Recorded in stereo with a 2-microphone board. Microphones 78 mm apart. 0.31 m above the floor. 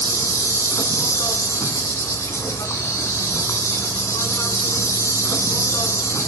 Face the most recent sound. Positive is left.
turn(degrees=40)  # may be behind; listen again after turning